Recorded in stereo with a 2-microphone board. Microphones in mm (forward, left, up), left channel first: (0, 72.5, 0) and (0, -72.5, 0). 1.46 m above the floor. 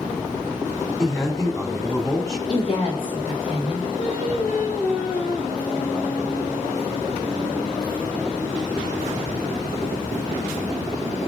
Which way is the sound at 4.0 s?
80° left.